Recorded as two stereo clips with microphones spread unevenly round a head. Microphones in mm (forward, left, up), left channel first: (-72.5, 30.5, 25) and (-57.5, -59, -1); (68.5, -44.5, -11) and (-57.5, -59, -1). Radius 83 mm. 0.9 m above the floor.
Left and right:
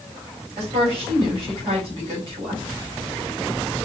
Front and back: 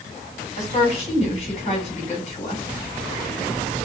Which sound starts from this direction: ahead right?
A woman speaking, at 0.6 s.